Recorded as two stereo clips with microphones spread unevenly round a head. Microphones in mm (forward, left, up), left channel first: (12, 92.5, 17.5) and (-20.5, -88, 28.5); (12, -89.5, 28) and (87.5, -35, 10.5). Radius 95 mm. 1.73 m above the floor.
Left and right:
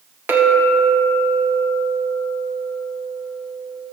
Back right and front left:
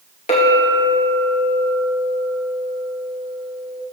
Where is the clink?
Straight behind, 1.8 m.